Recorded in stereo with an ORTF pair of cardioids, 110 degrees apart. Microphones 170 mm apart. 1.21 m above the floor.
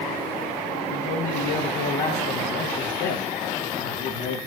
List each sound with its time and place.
0.9 s a man speaking: 65° left, 1.0 m